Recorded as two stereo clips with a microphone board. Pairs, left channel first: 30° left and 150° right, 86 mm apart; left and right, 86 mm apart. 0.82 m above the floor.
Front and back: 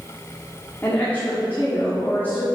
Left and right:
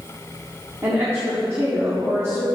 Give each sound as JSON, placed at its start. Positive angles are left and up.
{"t": 0.8, "sound": "a woman speaking", "azimuth_deg": -35, "distance_m": 1.8}